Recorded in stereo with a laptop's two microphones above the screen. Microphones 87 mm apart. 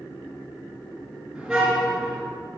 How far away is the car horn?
About 4.5 m.